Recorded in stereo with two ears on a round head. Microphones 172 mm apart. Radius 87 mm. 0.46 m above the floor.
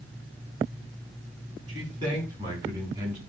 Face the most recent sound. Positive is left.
turn(degrees=-20)  # may be behind; listen again after turning